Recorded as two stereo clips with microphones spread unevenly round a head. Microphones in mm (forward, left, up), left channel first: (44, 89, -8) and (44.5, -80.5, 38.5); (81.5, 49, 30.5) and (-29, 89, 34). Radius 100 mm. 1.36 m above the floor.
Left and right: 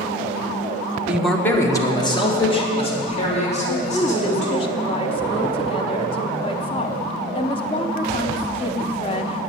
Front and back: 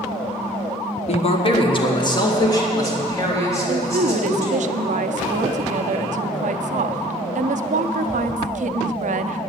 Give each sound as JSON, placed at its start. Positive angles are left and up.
{"t": 1.1, "sound": "a man speaking", "azimuth_deg": 0, "distance_m": 1.2}
{"t": 3.7, "sound": "a woman speaking", "azimuth_deg": 150, "distance_m": 0.6}